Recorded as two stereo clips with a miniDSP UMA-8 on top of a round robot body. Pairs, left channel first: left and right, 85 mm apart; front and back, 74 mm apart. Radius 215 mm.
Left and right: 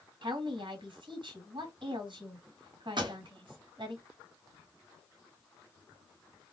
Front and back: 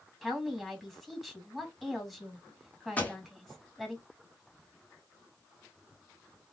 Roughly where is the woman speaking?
Right.